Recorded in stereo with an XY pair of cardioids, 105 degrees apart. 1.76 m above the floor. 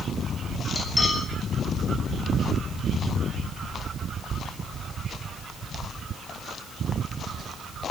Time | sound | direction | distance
0.8 | cutlery clinking | 20° left | 6.5 m